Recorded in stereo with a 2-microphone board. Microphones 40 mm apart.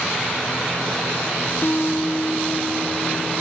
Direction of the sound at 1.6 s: 70° left (ahead or behind).